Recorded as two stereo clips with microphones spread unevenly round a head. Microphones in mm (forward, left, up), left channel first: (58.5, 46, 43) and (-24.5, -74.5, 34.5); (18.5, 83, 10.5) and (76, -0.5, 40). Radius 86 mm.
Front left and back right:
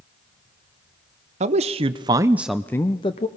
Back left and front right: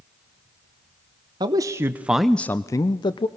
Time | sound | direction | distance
1.4 | a man speaking | 90° right | 0.9 m